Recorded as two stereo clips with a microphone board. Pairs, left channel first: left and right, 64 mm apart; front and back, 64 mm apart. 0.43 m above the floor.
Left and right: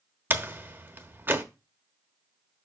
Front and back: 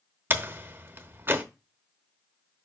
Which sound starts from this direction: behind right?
A door slam, at 0.3 s.